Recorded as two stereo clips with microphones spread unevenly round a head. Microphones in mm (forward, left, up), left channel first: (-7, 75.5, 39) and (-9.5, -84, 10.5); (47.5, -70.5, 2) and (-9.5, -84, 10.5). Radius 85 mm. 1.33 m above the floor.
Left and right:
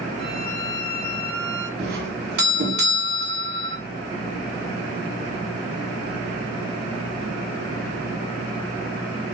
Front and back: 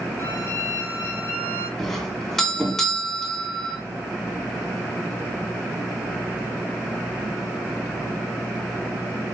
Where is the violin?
30° right, 5 m.